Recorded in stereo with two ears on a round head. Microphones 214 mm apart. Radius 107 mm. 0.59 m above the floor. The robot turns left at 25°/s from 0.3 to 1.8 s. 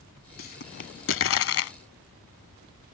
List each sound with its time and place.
0.4 s a pop: 40° left (ahead or behind); by 1.7 s 65° left (ahead or behind)